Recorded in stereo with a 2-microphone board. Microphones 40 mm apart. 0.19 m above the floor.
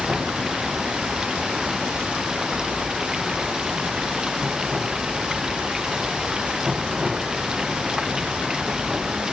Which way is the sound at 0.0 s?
15° right (ahead or behind).